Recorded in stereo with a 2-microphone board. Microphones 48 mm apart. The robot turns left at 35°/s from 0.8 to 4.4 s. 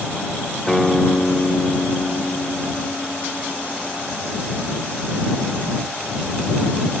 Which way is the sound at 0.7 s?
170° left.